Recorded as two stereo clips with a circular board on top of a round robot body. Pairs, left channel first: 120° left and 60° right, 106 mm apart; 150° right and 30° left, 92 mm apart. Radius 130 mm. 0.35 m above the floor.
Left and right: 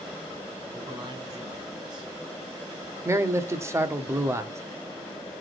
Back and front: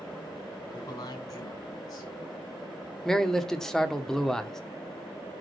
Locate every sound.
0.7 s a man speaking: 105° right, 4 m
3.0 s a man speaking: 70° right, 1.1 m